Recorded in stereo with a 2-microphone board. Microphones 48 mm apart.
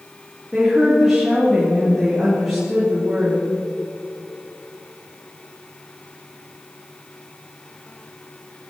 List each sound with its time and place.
0.5 s a woman speaking: 10° right (ahead or behind), 3.5 m